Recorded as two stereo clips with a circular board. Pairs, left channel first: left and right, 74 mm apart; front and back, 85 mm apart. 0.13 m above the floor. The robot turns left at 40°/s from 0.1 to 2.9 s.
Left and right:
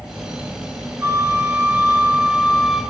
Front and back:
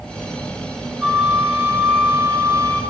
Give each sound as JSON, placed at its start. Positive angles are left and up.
{"t": 1.0, "sound": "a flute", "azimuth_deg": -100, "distance_m": 1.4}